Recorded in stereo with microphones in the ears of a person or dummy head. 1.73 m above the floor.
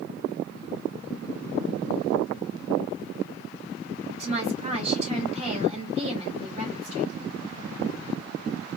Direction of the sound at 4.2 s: 40° right (ahead or behind).